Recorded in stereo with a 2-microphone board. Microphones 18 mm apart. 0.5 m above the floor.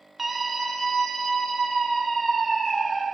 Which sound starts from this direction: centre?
A scream, at 0.2 s.